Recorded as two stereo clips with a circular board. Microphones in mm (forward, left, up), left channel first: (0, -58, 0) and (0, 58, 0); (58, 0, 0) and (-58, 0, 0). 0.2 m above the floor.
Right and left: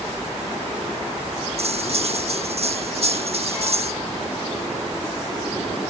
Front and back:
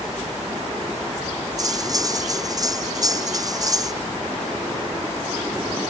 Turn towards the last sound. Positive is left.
turn(degrees=120)